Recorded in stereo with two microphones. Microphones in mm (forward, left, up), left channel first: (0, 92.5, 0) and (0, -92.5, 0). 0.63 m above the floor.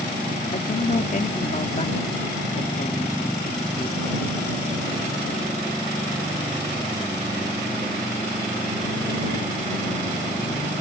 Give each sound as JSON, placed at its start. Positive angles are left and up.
{"t": 0.5, "sound": "a man speaking", "side_deg": 45}